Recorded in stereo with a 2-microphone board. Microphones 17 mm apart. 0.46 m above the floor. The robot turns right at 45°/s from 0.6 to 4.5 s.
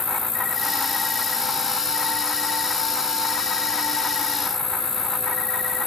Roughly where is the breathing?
I don't hear breathing.